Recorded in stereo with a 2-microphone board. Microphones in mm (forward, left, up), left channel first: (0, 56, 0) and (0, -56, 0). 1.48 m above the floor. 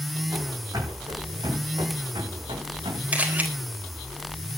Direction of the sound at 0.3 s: 30° right (ahead or behind).